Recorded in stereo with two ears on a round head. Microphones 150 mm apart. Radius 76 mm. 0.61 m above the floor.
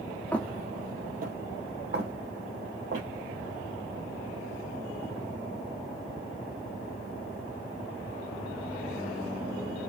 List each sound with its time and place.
0.3 s footsteps: 10° left (ahead or behind), 0.6 m; by 3.1 s 75° right (ahead or behind), 2.5 m